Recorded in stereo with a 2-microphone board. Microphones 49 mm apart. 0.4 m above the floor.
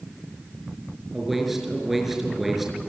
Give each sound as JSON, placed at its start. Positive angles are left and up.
{"t": 1.1, "sound": "a man speaking", "side_deg": -5, "distance_m": 5.5}